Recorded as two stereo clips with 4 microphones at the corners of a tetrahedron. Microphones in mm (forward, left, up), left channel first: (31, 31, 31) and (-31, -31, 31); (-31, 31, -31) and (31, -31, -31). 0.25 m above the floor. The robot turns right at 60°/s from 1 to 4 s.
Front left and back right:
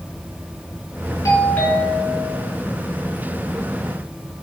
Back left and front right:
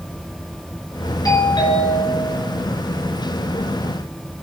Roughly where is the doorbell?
Left.